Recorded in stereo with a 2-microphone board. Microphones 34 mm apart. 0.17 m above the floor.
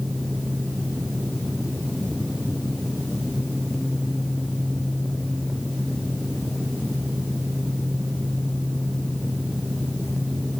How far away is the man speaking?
I don't hear a man speaking.